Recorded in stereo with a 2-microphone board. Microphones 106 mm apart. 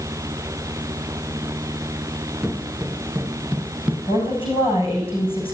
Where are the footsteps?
10° right (ahead or behind), 1.2 m; by 4.0 s 5° right (ahead or behind), 2.5 m.